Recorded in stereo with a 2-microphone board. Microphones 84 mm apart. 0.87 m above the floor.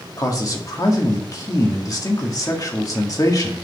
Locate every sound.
0.2 s a man speaking: 45° left (ahead or behind), 1.8 m